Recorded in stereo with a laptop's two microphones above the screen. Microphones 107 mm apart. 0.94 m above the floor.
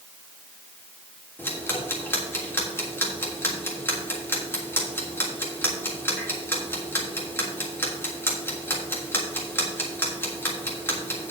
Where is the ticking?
20° left (ahead or behind), 1.5 m.